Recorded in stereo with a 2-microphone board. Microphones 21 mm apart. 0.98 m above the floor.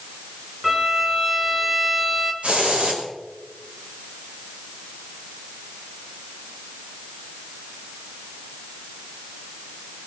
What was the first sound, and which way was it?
A violin, 15° right (ahead or behind).